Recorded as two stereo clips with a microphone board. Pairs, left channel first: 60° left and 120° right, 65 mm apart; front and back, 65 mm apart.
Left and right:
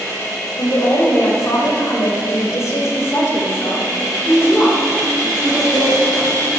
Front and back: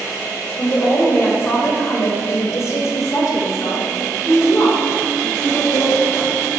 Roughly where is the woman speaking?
Ahead left.